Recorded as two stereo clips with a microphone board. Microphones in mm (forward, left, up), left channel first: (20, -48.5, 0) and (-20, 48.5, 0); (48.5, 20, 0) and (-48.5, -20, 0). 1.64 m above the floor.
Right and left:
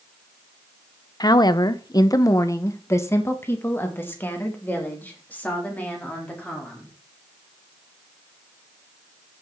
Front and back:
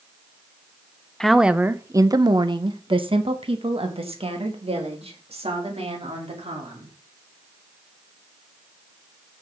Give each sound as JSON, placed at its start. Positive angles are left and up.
{"t": 1.2, "sound": "a woman speaking", "azimuth_deg": -60, "distance_m": 0.6}